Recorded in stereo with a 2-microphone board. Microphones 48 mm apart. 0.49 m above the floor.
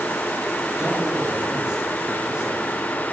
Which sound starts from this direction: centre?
A man speaking, at 0.8 s.